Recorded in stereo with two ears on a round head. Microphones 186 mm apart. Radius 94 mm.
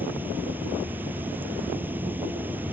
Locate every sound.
0.0 s running water: 10° right (ahead or behind)